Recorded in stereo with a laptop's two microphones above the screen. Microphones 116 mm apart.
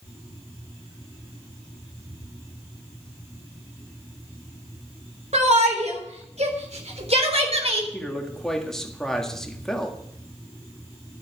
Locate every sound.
5.3 s a shout: 75° right (ahead or behind), 3.5 m; by 7.8 s 60° right (ahead or behind), 4 m
7.9 s a man speaking: 5° left (ahead or behind), 1.7 m